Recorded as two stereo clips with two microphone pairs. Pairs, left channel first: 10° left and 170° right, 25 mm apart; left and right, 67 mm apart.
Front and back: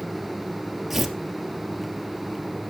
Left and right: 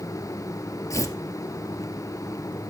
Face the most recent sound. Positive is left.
turn(degrees=105)